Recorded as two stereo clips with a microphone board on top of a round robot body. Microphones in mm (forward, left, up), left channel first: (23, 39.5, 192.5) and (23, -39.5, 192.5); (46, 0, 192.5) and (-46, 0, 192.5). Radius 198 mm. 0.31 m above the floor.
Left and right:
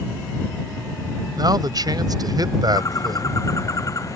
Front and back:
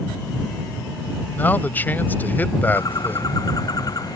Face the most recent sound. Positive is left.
turn(degrees=45)